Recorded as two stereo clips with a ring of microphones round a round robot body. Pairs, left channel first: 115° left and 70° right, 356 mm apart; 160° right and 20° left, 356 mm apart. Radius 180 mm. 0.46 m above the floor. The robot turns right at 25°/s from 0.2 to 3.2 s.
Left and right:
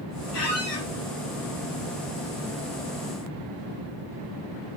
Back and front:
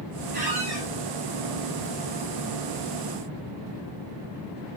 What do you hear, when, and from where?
0.3 s a squeak: 90° left, 3.5 m; by 0.9 s 105° left, 3.5 m